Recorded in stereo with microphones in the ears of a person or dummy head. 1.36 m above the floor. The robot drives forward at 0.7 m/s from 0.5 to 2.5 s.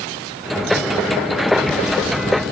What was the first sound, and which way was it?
Only background noise.